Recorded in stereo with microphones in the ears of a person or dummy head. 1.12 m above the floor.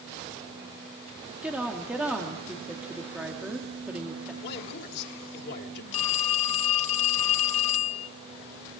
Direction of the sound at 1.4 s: 5° right (ahead or behind).